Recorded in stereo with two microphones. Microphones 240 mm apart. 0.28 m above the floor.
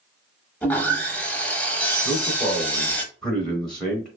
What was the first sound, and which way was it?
Sawing, 5° left (ahead or behind).